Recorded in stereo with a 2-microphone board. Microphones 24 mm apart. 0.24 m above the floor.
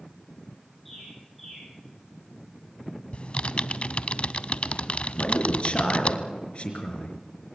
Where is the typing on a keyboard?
50° left (ahead or behind), 0.5 m.